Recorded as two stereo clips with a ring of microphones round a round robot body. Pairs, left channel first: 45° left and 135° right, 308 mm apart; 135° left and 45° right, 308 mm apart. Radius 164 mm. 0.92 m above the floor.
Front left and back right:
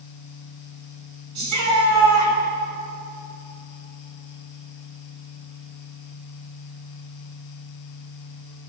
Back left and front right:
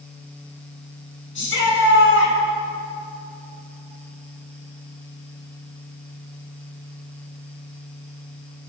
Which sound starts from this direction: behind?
A shout, at 1.4 s.